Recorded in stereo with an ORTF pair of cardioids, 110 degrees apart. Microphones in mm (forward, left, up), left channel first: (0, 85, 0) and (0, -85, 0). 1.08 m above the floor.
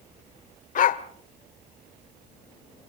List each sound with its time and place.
0.8 s a dog barking: 55° left, 1.7 m